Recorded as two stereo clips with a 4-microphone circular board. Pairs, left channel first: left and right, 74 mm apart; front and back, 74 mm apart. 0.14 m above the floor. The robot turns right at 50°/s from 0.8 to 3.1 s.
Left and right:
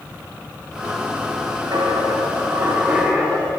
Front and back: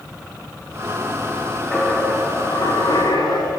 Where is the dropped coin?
75° right, 9.5 m; by 3.5 s 5° right, 9.5 m.